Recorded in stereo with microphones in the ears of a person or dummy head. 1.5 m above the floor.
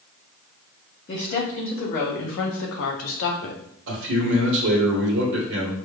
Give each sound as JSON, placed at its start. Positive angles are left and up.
{"t": 1.1, "sound": "a woman speaking", "side_deg": 40, "distance_m": 2.0}
{"t": 3.9, "sound": "a man speaking", "side_deg": -70, "distance_m": 1.4}